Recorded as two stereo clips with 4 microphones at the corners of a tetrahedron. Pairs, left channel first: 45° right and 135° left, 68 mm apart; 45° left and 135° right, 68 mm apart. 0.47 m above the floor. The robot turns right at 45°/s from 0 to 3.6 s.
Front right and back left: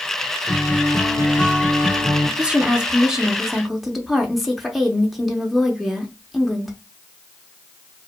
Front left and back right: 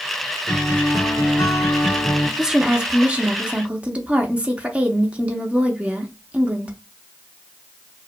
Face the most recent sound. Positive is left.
turn(degrees=-140)